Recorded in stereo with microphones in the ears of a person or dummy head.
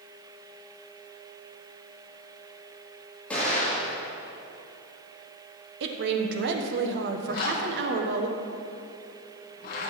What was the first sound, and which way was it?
An explosion, 5° left (ahead or behind).